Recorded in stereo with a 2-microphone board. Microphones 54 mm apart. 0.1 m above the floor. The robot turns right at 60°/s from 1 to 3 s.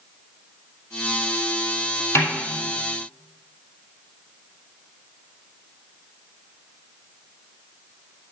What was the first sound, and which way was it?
A snare drum, 50° left (ahead or behind).